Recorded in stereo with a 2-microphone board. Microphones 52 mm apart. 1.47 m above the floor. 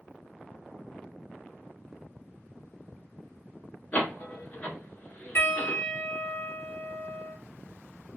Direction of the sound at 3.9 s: 40° left (ahead or behind).